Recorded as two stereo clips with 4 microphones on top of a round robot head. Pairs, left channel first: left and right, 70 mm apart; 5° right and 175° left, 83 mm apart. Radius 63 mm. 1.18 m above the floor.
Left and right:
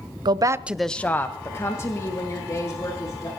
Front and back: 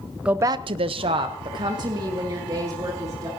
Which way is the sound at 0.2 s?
105° right.